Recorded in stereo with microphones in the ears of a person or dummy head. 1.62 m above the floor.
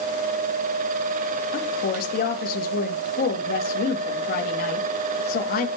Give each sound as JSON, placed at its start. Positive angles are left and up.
{"t": 1.5, "sound": "a woman speaking", "side_deg": 55, "distance_m": 3.0}